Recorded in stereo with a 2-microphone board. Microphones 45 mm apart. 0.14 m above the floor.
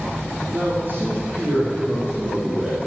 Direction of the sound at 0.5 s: 50° right (ahead or behind).